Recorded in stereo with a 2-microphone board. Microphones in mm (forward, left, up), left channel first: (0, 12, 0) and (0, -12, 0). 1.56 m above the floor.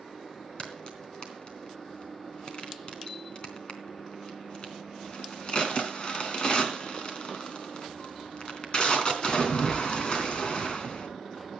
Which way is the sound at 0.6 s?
40° left (ahead or behind).